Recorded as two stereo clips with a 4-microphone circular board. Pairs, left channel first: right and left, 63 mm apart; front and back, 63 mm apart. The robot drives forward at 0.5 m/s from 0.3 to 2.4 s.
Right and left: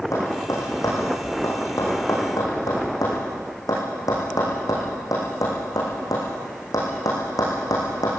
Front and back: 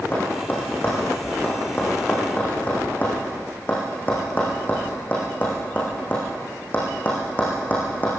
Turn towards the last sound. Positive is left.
turn(degrees=-65)